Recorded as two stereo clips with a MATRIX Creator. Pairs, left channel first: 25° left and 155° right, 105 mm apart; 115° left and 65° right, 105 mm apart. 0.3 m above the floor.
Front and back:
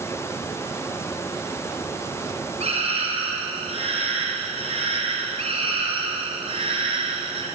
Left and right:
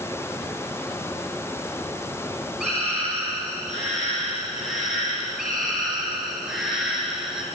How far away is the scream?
About 9.5 m.